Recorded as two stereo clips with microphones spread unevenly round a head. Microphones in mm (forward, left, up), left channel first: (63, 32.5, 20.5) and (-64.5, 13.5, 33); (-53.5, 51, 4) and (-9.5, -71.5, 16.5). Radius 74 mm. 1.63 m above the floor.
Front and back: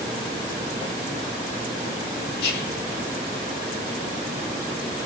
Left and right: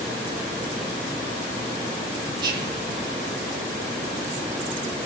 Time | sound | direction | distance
2.4 | whispering | 5° right | 1.3 m